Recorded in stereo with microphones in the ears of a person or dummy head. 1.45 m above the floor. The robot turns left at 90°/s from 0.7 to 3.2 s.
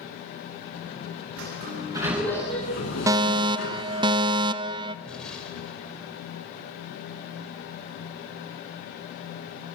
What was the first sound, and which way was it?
A sliding door, 105° right.